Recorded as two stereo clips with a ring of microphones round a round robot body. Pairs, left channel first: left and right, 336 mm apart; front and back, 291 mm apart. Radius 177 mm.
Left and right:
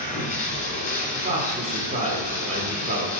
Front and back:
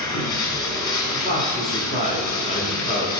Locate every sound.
0.0 s running water: 20° left, 2.0 m
1.1 s a man speaking: 45° right, 1.4 m